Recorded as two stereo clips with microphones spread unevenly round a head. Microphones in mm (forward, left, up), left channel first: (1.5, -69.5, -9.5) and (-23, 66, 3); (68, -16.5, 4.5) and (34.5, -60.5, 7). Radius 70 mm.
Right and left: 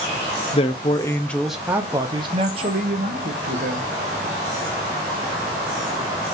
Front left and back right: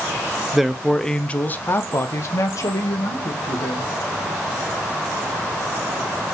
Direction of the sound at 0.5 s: 45° right.